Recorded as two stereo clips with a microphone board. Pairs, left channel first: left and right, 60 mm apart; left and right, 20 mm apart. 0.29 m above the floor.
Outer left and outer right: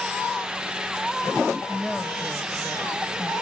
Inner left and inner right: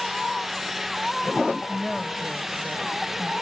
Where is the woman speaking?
5° left (ahead or behind), 1.0 m.